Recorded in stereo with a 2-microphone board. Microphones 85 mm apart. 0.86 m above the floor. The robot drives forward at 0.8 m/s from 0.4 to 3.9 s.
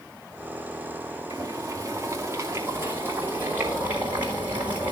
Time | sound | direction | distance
1.3 | boiling | 50° right (ahead or behind) | 1.9 m